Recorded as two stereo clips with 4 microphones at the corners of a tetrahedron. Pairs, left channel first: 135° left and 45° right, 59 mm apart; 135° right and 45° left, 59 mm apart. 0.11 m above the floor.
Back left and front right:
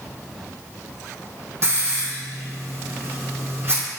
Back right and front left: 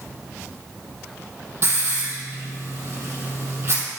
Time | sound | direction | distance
1.6 | a hiss | straight ahead | 3 m